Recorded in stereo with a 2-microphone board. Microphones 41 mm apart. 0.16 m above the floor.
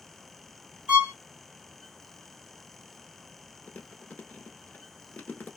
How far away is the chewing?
About 0.9 m.